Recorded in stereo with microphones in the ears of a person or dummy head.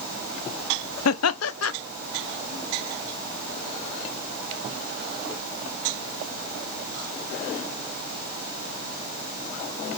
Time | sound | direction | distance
1.1 | laughter | 80° left | 0.7 m